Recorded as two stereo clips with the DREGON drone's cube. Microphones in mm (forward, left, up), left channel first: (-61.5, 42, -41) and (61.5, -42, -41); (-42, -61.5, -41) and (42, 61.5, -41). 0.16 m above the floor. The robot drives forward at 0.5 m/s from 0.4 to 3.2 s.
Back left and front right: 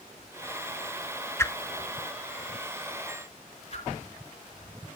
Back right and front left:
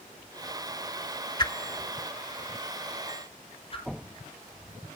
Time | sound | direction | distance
1.4 | a whoosh | 155° right | 0.5 m